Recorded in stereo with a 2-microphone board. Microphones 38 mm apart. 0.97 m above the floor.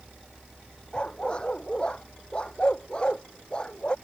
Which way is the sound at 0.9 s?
25° left (ahead or behind).